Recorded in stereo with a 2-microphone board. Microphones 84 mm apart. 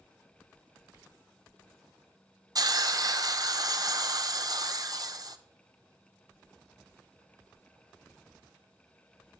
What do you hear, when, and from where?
2.5 s a hiss: 50° right (ahead or behind), 0.5 m